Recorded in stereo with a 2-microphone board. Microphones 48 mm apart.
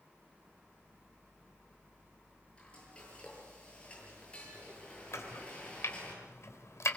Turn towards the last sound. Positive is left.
turn(degrees=75)  # may be behind; listen again after turning